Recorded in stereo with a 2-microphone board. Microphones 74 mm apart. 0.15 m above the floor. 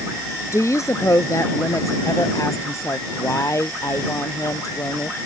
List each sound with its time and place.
0.5 s a woman speaking: 45° left (ahead or behind)